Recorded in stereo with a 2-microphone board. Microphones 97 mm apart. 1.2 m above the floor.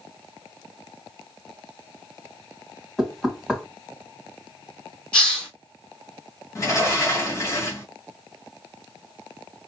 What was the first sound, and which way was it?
Knocking, centre (ahead or behind).